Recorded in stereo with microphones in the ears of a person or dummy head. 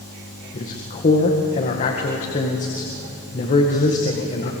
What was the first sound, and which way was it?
A man speaking, 40° left (ahead or behind).